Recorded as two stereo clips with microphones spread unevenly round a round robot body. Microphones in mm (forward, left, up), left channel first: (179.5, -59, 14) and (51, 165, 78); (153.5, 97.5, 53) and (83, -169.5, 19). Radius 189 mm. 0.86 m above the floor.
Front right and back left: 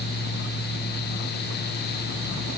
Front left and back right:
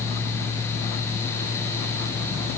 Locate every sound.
Only background noise.